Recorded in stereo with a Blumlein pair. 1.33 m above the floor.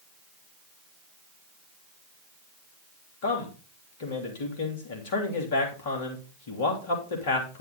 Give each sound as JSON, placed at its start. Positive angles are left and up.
{"t": 3.2, "sound": "a man speaking", "azimuth_deg": 55, "distance_m": 3.0}